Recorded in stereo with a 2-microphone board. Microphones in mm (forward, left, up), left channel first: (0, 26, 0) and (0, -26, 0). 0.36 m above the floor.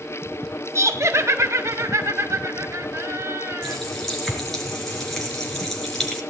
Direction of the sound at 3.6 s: 5° left (ahead or behind).